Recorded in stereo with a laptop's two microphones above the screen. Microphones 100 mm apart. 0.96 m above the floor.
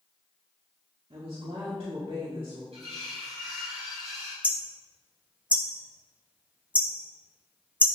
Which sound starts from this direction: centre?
Hammering, at 4.4 s.